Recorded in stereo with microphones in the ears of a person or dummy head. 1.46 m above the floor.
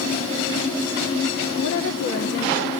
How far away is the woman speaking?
About 2.5 m.